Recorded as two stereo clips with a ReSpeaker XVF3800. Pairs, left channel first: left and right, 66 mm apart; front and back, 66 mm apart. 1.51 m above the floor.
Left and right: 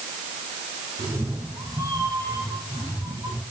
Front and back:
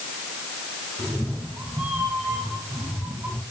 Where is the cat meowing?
100° right, 4.5 m.